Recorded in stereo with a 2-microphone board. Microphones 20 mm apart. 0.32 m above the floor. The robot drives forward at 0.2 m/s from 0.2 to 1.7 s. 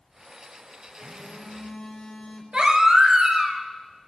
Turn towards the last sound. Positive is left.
turn(degrees=-50)  # may be behind; listen again after turning